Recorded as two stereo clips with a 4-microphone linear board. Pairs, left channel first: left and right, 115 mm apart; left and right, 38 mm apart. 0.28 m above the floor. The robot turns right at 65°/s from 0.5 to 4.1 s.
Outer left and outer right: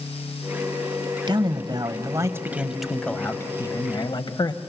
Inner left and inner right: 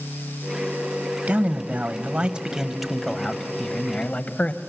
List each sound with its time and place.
1.3 s a man speaking: 105° right, 1.1 m; by 4.6 s 80° left, 1.1 m